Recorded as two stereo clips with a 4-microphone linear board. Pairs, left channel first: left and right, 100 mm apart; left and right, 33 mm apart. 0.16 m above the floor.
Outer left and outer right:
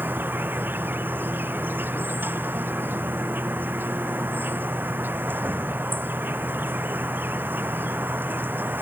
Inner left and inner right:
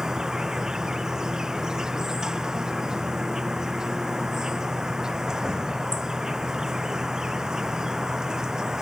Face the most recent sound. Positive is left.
turn(degrees=-20)  # may be behind; listen again after turning